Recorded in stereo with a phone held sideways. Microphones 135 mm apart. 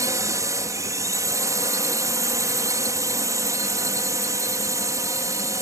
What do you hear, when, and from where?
0.0 s a drone: 25° right (ahead or behind)